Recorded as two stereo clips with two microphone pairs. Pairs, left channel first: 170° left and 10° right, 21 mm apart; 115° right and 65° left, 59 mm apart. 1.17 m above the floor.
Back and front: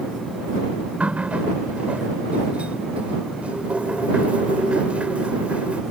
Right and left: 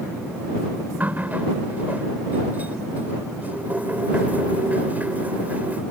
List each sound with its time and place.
1.0 s a running tap: 5° left